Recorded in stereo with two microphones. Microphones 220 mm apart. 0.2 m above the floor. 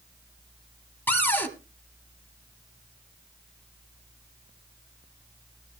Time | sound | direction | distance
1.1 | a cupboard door | 10° left (ahead or behind) | 1.1 m